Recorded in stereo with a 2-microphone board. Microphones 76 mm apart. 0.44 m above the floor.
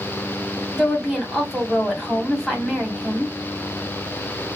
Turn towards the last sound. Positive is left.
turn(degrees=-5)  # may be behind; listen again after turning